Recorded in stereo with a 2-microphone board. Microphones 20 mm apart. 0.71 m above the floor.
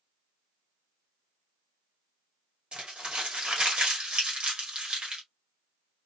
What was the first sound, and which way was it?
Crumpling, 50° right (ahead or behind).